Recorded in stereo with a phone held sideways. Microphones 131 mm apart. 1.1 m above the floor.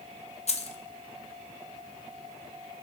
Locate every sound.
0.5 s keys jangling: 55° left (ahead or behind), 0.6 m